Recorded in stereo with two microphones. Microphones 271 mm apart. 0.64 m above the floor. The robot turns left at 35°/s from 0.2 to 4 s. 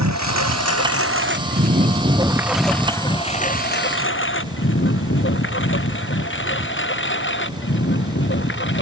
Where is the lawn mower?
80° right; by 8.8 s 45° left (ahead or behind).